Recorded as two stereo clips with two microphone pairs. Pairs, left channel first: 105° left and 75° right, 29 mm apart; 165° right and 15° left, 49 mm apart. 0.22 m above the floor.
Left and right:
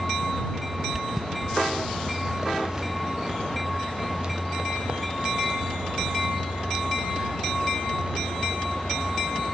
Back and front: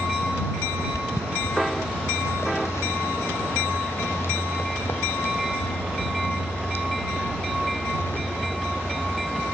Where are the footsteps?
150° right; by 9.1 s 120° right.